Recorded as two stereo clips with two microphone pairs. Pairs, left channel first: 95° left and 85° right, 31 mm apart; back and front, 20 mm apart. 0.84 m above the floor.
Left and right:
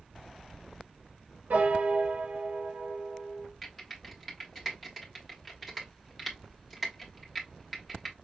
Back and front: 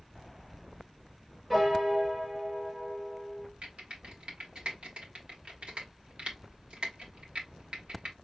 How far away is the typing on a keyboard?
About 1.4 m.